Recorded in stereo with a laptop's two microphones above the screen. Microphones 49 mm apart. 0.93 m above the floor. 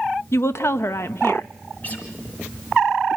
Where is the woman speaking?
55° left (ahead or behind), 0.7 m.